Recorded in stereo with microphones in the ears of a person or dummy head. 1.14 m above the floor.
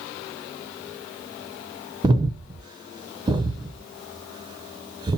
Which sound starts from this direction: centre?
Breathing, at 2.0 s.